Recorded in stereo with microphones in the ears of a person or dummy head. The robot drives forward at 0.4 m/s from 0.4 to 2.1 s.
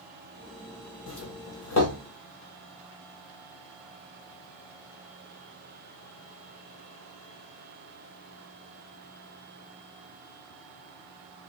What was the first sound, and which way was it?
A doorbell, 75° left (ahead or behind).